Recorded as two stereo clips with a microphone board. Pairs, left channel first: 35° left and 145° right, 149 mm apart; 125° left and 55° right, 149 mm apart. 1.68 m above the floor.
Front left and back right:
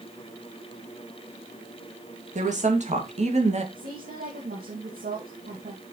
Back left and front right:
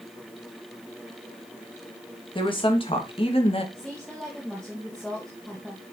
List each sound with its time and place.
2.4 s a woman speaking: straight behind, 2.5 m; by 3.6 s 175° left, 2 m
3.8 s a woman speaking: 150° right, 2 m